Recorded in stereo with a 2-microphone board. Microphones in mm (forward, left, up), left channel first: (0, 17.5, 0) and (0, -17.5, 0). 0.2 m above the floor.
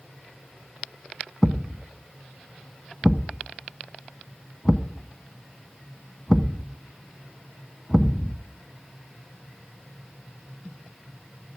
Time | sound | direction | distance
1.4 | a thud | centre (ahead or behind) | 0.7 m